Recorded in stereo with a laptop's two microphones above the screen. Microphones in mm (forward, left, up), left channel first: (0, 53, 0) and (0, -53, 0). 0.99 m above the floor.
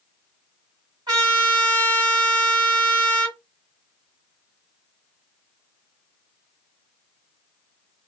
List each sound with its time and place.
1.1 s a trumpet: 40° right (ahead or behind), 3 m